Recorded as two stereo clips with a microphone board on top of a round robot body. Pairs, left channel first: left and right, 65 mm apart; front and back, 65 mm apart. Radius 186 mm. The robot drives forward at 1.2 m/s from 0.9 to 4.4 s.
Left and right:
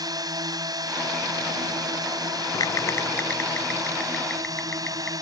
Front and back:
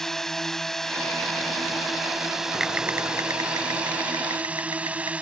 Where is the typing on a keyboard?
90° left; by 5.1 s 165° left.